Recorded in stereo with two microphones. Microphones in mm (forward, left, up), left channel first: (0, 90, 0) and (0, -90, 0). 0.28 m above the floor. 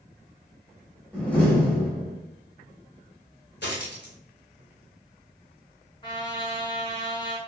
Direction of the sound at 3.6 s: 80° left.